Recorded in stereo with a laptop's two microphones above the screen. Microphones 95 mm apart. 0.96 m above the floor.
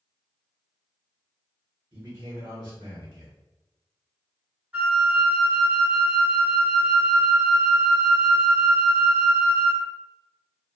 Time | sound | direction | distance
1.9 | a man speaking | 50° right (ahead or behind) | 1.2 m
4.7 | a flute | 20° right (ahead or behind) | 1.1 m